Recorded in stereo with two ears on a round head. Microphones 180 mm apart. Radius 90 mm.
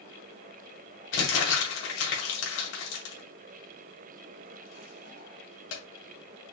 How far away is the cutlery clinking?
No cutlery clinking in this recording.